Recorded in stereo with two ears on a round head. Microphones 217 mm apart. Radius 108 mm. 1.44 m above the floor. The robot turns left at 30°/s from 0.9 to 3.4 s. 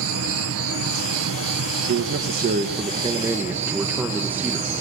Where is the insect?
75° right, 1.9 m; by 4.8 s 150° right, 1.9 m.